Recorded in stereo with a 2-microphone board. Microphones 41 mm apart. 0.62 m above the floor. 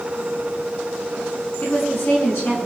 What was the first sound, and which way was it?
A woman speaking, 75° left (ahead or behind).